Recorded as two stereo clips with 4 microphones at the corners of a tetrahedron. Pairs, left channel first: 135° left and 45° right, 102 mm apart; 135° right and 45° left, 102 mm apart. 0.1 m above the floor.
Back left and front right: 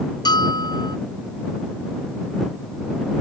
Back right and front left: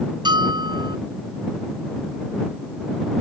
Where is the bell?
90° left.